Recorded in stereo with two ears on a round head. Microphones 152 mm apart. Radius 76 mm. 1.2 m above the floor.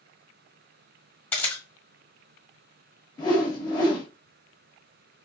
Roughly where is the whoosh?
Left.